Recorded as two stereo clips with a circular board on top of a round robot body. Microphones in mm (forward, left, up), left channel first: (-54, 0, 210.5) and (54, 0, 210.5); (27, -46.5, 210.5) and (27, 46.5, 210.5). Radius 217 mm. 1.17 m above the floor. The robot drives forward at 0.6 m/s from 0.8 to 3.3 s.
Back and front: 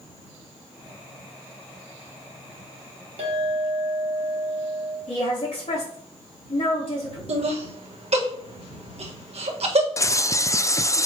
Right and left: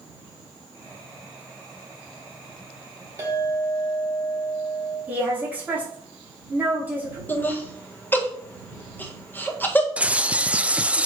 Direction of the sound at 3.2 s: 25° left.